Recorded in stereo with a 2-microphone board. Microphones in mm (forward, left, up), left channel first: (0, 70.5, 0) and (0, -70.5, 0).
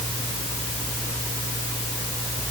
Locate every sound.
Only background noise.